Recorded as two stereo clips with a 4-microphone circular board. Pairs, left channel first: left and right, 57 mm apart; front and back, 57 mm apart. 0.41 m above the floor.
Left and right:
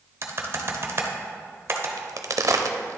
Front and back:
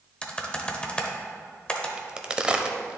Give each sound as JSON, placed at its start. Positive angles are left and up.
{"t": 0.2, "sound": "typing on a keyboard", "azimuth_deg": -65, "distance_m": 0.8}
{"t": 2.0, "sound": "a crack", "azimuth_deg": -110, "distance_m": 0.5}